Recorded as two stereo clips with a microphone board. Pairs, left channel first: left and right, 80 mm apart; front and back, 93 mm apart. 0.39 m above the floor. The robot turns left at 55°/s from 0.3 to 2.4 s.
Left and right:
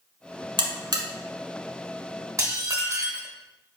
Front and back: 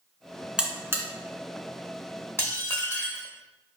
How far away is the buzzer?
About 1.0 m.